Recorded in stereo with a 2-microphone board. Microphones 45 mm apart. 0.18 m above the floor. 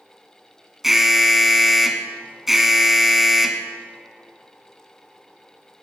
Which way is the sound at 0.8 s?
5° right (ahead or behind).